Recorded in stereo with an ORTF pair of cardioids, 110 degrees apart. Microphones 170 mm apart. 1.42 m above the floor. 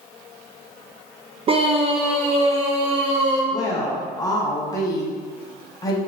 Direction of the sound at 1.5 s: 35° right.